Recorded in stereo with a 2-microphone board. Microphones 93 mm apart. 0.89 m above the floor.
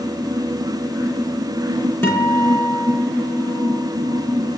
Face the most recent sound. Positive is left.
turn(degrees=25)  # may be behind; listen again after turning